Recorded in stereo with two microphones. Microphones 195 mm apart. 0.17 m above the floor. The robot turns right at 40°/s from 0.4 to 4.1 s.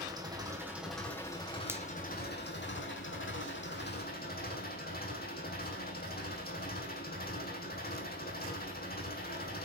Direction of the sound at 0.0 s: 20° right.